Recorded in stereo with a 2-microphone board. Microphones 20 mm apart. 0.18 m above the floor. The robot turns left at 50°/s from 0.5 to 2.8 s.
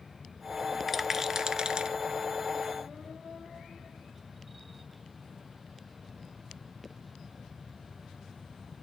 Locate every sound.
0.9 s a rattle: 5° right (ahead or behind), 0.6 m; by 2.0 s 50° right (ahead or behind), 0.6 m